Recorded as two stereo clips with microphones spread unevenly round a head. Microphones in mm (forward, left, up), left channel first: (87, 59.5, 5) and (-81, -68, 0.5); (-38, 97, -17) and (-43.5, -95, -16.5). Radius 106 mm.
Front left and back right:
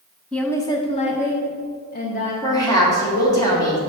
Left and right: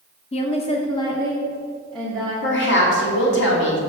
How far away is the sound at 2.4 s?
About 2.5 m.